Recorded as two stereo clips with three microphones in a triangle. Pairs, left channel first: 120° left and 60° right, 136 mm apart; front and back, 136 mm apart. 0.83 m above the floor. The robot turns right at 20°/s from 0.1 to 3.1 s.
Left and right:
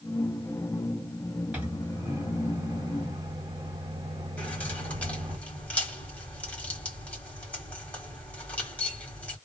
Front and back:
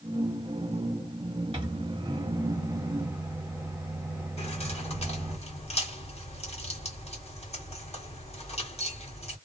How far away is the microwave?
About 1.1 m.